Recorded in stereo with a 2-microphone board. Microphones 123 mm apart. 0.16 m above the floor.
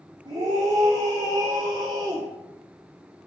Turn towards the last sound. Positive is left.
turn(degrees=-40)  # may be behind; listen again after turning